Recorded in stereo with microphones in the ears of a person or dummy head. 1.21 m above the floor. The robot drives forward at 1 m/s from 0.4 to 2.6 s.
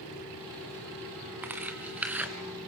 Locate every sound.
1.4 s tearing paper: 10° right (ahead or behind), 1.9 m; by 2.3 s 5° right (ahead or behind), 3 m